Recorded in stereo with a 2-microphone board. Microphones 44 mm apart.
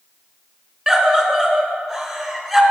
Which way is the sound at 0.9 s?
Centre (ahead or behind).